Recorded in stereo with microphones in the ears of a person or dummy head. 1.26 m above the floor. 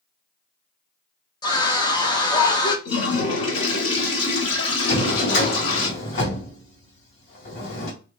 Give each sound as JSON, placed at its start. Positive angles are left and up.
{"t": 1.4, "sound": "a scream", "side_deg": 20, "distance_m": 0.7}
{"t": 2.9, "sound": "a toilet flushing", "side_deg": 35, "distance_m": 2.0}
{"t": 4.9, "sound": "a drawer", "side_deg": 65, "distance_m": 1.7}